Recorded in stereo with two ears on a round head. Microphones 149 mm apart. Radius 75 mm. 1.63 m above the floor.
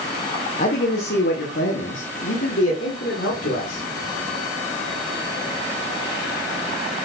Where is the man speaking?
55° left (ahead or behind), 1.2 m; by 3.8 s 70° left (ahead or behind), 3 m.